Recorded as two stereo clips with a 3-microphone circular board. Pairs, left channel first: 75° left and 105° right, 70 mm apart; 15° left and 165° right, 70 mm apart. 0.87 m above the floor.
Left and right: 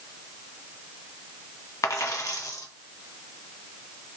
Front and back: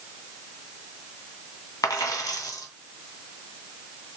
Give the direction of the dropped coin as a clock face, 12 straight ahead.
11 o'clock.